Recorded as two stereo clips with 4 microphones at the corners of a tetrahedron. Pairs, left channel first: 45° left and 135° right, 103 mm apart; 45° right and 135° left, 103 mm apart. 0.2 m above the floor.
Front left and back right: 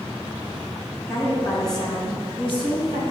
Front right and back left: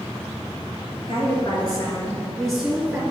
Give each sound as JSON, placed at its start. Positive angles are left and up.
{"t": 1.1, "sound": "a woman speaking", "azimuth_deg": -20, "distance_m": 2.5}